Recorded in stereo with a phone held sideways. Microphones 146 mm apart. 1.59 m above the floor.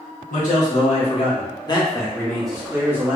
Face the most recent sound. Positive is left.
turn(degrees=-20)  # may be behind; listen again after turning